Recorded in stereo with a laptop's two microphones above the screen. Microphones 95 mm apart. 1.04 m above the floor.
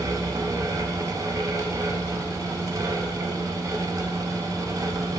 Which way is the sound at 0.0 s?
35° right (ahead or behind).